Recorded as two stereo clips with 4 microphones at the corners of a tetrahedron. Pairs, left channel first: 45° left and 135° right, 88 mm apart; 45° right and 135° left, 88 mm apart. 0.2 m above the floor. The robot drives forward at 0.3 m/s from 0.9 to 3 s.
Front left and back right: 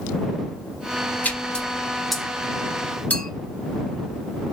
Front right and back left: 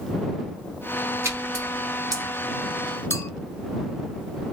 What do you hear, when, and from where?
1.2 s a splash: 105° left, 0.6 m; by 2.3 s 135° left, 0.8 m
3.1 s a clink: 10° right, 0.7 m